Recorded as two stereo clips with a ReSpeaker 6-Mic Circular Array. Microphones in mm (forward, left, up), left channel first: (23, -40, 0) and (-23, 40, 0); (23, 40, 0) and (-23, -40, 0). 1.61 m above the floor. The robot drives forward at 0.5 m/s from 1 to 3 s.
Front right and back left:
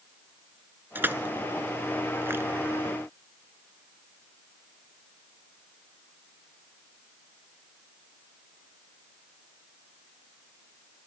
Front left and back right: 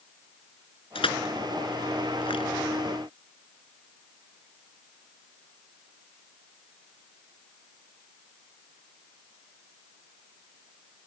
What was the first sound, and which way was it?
Crushing, 55° left.